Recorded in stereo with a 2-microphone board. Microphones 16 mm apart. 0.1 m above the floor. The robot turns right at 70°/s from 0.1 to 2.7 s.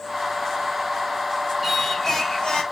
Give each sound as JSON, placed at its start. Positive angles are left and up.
{"t": 1.6, "sound": "singing", "azimuth_deg": -5, "distance_m": 3.5}